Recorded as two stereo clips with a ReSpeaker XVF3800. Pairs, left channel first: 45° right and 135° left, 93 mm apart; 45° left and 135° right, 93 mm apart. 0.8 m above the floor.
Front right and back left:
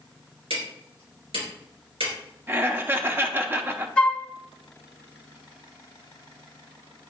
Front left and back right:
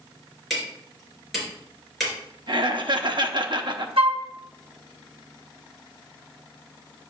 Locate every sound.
0.5 s hammering: 135° left, 4 m
2.5 s laughter: 160° right, 0.8 m
4.0 s a flute: 120° right, 0.7 m